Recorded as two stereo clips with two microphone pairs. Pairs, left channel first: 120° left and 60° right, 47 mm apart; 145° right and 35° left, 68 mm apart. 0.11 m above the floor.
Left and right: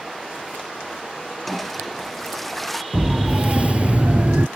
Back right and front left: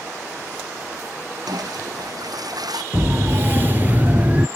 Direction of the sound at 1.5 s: 30° left.